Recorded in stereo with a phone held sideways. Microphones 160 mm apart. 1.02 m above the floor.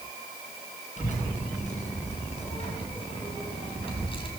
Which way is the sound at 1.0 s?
50° left (ahead or behind).